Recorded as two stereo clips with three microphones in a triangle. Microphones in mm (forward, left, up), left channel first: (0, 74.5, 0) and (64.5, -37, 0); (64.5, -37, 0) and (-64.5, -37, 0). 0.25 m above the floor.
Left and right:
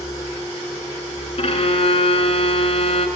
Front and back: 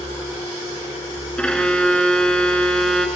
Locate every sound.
1.4 s a violin: 85° left, 0.8 m